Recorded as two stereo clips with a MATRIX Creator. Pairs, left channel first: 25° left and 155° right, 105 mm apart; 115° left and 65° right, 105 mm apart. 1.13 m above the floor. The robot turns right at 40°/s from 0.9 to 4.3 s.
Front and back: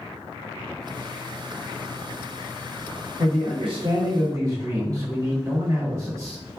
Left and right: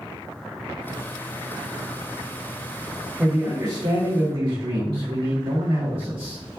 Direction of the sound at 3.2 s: 145° right.